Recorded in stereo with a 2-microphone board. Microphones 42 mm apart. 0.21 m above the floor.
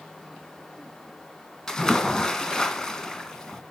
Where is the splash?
15° left (ahead or behind), 2 m.